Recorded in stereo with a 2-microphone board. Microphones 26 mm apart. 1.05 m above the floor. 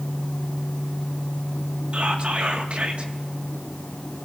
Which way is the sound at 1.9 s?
55° right (ahead or behind).